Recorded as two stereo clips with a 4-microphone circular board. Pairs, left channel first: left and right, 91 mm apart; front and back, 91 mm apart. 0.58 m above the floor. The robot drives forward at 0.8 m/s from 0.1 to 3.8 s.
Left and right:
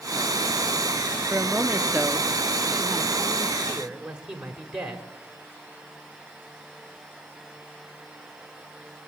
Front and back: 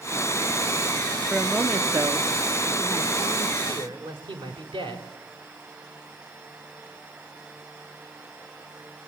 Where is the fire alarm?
I don't hear a fire alarm.